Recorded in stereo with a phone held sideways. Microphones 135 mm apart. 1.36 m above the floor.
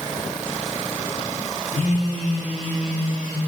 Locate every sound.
1.7 s a phone buzzing: 70° left (ahead or behind), 1.0 m